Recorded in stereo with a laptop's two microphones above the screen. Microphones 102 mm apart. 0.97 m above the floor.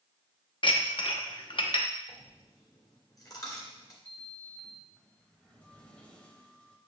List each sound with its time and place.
0.6 s dishes clattering: 55° left (ahead or behind), 0.8 m
2.1 s a dropped coin: 35° left (ahead or behind), 2 m
4.0 s a sliding door: 10° left (ahead or behind), 0.8 m